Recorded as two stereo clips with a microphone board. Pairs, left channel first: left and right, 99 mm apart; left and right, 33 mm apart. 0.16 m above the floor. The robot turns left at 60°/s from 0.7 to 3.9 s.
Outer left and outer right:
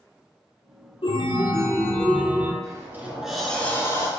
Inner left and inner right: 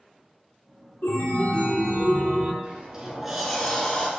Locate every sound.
1.0 s a chime: 70° left, 0.8 m; by 2.5 s 25° right, 0.8 m
2.6 s a sliding door: 135° right, 1.1 m; by 4.1 s 145° left, 1.1 m